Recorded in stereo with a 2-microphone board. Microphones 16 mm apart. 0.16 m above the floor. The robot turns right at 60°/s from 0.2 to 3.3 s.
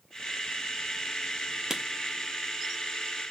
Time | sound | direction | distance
1.7 | writing | 35° right (ahead or behind) | 0.6 m